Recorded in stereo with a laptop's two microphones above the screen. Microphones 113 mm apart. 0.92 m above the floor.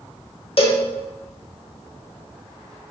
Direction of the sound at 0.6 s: 55° left (ahead or behind).